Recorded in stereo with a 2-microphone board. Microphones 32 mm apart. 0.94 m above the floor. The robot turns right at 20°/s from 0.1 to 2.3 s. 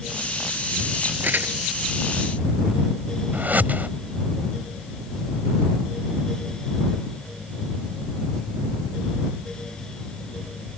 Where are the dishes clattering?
I don't hear dishes clattering.